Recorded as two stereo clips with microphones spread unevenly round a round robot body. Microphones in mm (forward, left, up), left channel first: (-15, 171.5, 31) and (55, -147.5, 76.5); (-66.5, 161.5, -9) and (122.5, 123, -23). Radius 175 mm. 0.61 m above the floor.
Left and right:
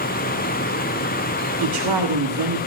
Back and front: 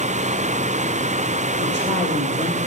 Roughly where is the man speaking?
Right.